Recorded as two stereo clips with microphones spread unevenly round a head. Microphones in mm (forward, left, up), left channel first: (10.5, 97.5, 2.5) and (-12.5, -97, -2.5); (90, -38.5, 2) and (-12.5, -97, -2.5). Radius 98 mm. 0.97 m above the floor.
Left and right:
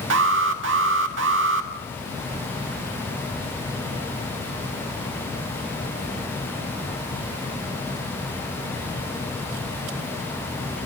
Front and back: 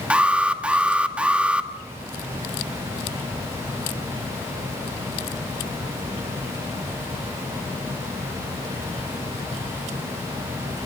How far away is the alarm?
About 1.7 m.